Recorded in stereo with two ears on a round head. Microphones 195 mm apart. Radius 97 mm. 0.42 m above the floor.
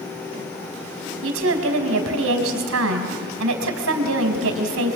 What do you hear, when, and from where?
1.2 s a woman speaking: 70° right (ahead or behind), 3 m